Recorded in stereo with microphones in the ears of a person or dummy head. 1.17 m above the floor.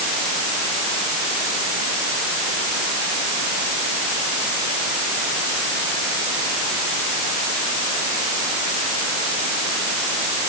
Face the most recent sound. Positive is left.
No sound to turn to.